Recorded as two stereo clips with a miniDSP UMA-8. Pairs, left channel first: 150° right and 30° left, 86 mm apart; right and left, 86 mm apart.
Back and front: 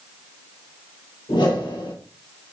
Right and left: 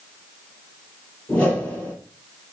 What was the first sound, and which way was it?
A whoosh, 160° right.